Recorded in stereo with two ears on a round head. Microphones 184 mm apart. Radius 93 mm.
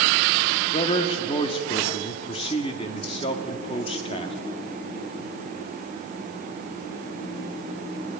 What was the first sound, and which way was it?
A man speaking, 25° left (ahead or behind).